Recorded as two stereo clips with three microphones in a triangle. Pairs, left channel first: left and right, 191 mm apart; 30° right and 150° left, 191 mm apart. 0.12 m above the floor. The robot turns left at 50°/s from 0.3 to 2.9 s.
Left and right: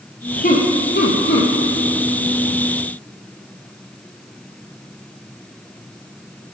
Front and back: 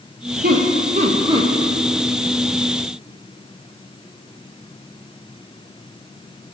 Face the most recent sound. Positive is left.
turn(degrees=10)